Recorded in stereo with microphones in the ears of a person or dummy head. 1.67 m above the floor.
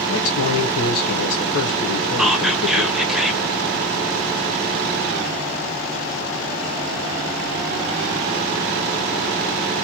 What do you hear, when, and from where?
0.1 s a man speaking: 85° left, 1.5 m
2.2 s whispering: centre (ahead or behind), 1.0 m